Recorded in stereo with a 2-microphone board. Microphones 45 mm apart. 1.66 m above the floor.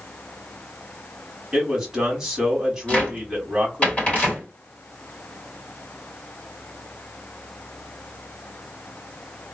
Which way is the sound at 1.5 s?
10° right (ahead or behind).